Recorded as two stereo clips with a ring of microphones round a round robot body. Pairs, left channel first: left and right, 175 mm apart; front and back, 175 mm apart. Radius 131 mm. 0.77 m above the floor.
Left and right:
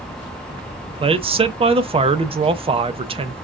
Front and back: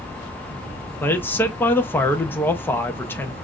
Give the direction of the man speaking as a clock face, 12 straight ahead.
2 o'clock.